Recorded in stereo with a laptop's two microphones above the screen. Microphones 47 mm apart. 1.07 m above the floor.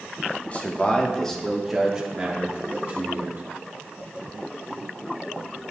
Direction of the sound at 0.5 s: 30° left (ahead or behind).